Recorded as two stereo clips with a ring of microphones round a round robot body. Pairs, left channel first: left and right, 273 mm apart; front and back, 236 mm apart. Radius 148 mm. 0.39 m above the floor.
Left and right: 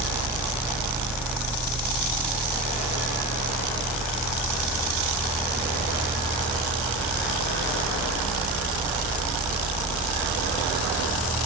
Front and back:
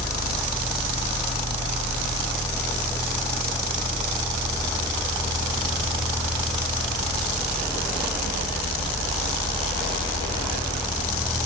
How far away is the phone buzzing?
No phone buzzing in this recording.